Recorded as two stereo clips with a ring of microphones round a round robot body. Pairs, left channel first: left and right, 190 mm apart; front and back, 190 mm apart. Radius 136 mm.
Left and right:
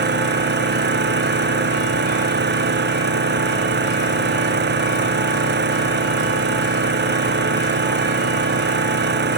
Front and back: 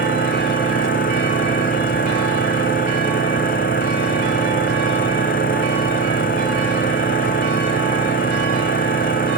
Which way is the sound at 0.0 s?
60° right.